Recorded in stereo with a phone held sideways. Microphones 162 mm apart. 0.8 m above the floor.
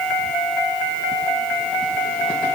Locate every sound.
Only background noise.